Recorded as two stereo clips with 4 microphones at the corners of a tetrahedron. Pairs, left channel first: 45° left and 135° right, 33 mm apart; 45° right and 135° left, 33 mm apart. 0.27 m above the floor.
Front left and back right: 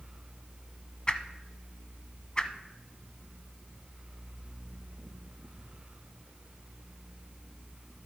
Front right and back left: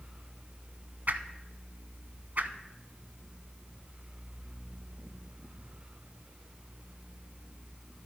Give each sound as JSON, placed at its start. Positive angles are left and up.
{"t": 1.1, "sound": "a whoosh", "azimuth_deg": 105, "distance_m": 0.7}